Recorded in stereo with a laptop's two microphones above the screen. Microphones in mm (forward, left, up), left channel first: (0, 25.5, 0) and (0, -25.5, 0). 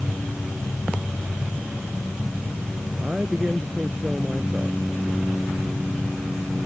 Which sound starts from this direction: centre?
A woman speaking, at 3.0 s.